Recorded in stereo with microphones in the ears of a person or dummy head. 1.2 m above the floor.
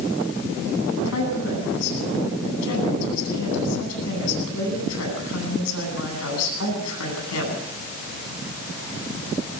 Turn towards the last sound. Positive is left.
turn(degrees=80)